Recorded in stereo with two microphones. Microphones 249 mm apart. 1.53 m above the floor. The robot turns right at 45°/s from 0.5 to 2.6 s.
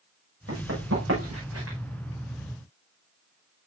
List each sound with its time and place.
0.5 s running footsteps: 65° right (ahead or behind), 6 m